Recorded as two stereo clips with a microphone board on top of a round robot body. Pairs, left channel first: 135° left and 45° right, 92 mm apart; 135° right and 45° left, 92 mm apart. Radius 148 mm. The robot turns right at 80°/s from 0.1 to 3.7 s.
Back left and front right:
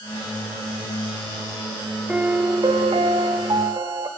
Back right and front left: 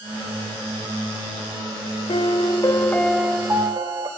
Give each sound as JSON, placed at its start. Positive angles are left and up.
{"t": 2.1, "sound": "a piano", "azimuth_deg": -125, "distance_m": 1.0}